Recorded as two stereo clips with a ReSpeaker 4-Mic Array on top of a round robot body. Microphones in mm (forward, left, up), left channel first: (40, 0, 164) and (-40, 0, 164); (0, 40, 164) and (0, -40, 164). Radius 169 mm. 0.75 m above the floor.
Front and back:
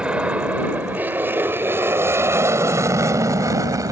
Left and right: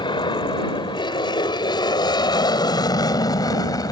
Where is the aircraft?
105° left; by 3.9 s 135° left.